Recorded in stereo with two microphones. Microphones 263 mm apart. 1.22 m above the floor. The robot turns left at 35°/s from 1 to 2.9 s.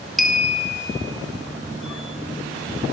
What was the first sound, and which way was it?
A clink, centre (ahead or behind).